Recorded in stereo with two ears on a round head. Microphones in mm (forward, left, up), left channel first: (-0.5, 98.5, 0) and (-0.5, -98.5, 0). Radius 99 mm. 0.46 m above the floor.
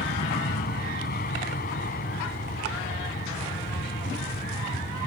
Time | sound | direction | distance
0.0 | an aircraft | 45° left (ahead or behind) | ?